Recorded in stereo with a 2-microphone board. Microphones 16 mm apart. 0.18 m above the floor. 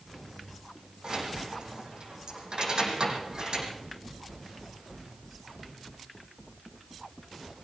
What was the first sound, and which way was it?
Keys jangling, 55° right (ahead or behind).